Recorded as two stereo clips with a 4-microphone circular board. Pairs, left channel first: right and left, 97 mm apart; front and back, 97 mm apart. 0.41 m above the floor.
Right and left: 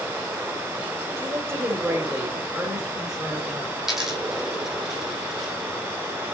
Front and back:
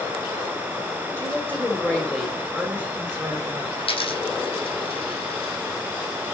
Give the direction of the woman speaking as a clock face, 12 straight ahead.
10 o'clock.